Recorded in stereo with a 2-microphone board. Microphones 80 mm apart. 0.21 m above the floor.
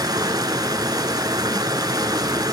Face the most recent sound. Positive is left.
turn(degrees=-55)  # may be behind; listen again after turning